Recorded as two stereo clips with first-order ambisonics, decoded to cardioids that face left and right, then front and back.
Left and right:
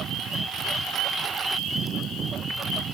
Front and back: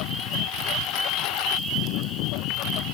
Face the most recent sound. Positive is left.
turn(degrees=-30)